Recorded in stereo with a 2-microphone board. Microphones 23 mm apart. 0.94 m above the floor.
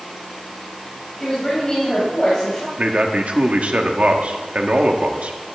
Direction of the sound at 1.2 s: 30° left (ahead or behind).